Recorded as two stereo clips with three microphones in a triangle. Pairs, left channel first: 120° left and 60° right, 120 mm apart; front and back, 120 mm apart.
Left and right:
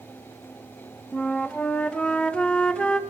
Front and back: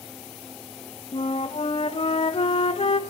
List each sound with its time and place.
1.1 s a flute: 40° left, 0.5 m